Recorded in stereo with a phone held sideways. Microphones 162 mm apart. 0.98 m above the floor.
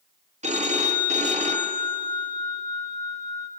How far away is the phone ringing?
About 0.8 m.